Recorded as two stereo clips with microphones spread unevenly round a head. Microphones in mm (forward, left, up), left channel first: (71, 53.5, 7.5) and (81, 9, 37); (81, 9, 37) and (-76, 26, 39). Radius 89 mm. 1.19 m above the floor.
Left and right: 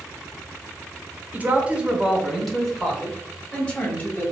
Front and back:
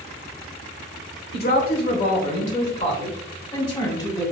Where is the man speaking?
Straight ahead, 1.2 m; by 4.3 s 65° left, 2.0 m.